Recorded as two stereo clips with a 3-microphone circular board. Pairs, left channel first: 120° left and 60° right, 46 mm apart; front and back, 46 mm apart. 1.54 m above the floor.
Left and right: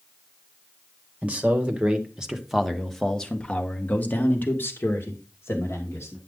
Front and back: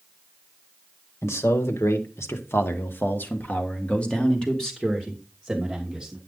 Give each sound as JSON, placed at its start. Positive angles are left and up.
{"t": 1.2, "sound": "a man speaking", "azimuth_deg": -5, "distance_m": 1.8}